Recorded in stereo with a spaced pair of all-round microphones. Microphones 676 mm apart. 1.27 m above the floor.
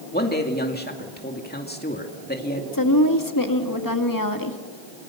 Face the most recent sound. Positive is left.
turn(degrees=30)  # may be behind; listen again after turning